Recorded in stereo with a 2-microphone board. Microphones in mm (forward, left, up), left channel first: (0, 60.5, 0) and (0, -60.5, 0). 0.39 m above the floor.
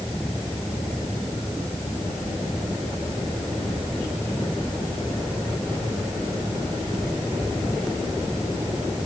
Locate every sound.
Only background noise.